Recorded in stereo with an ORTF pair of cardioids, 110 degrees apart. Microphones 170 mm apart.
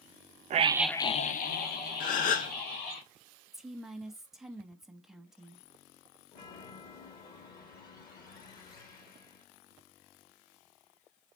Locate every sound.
0.5 s a scream: 45° right, 0.7 m; by 3.0 s 75° left, 3 m
2.0 s a gasp: 55° left, 0.7 m
3.5 s a woman speaking: straight ahead, 0.8 m
6.3 s a chime: 60° left, 1.7 m